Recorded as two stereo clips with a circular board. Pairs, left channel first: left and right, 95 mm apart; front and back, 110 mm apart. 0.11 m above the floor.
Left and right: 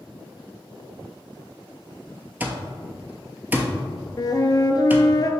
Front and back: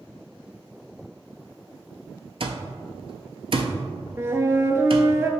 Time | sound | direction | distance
2.4 | an alarm clock | 160° right | 0.8 m
4.2 | a flute | 120° left | 0.6 m